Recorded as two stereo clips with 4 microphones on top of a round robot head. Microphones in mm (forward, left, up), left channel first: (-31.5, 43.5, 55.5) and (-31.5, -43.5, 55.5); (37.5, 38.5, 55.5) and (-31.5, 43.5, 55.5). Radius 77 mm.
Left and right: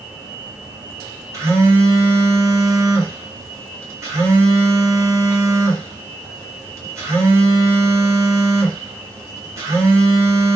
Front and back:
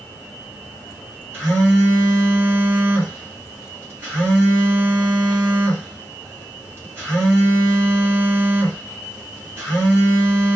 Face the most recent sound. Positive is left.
turn(degrees=-140)